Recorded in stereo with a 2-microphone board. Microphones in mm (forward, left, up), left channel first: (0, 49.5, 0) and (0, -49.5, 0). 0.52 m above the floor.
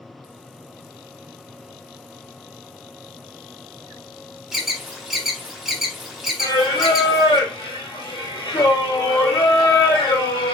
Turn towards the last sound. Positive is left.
turn(degrees=50)  # may be behind; listen again after turning